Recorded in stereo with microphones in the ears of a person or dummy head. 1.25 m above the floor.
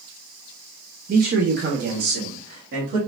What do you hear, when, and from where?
1.1 s a man speaking: 45° right (ahead or behind), 0.7 m; by 3.0 s 60° right (ahead or behind), 2.5 m